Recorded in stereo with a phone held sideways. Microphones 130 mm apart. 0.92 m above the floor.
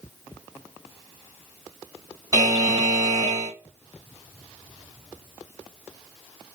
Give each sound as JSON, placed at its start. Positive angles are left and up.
{"t": 2.3, "sound": "a buzzer", "side_deg": -30, "distance_m": 1.2}